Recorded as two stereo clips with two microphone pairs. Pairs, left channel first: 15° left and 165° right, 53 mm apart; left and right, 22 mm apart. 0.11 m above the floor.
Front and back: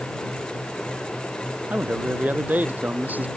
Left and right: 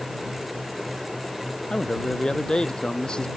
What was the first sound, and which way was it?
A man speaking, 140° left.